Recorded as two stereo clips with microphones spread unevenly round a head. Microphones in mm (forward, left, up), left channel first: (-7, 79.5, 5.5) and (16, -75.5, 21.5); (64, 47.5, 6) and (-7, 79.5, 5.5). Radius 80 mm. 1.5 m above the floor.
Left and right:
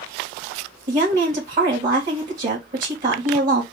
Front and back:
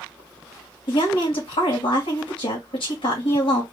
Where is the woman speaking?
40° right, 2.5 m.